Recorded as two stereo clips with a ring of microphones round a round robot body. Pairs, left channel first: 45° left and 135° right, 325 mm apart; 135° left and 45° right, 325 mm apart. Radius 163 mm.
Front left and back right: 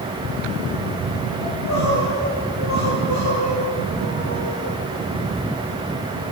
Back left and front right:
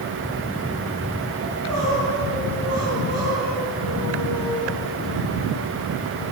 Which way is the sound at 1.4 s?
5° left.